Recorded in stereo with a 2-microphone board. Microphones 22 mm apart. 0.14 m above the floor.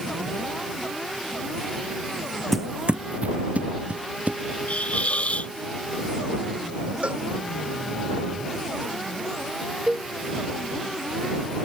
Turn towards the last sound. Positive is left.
turn(degrees=-40)  # may be behind; listen again after turning